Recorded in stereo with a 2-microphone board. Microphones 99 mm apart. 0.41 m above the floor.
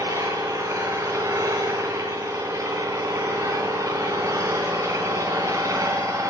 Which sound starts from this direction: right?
An engine running, at 0.0 s.